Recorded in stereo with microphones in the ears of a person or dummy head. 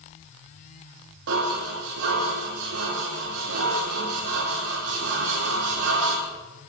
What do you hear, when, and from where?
1.3 s dishes clattering: 75° right (ahead or behind), 2.5 m